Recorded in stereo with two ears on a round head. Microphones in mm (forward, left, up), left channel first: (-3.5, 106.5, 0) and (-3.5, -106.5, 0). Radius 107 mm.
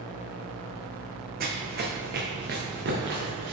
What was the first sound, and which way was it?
Running footsteps, 40° right (ahead or behind).